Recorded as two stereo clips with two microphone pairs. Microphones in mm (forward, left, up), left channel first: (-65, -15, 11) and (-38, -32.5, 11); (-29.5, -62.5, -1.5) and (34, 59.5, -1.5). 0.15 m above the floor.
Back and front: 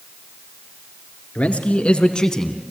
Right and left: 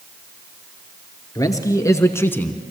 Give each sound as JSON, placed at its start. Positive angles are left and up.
{"t": 1.4, "sound": "a man speaking", "azimuth_deg": 180, "distance_m": 2.5}